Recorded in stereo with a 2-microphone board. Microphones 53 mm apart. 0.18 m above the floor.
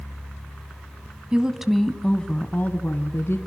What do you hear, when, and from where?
1.3 s a woman speaking: 20° right (ahead or behind), 1.5 m; by 3.4 s 50° left (ahead or behind), 2 m